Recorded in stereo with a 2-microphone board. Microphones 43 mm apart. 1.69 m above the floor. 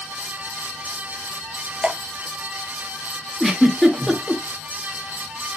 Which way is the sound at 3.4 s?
Centre (ahead or behind).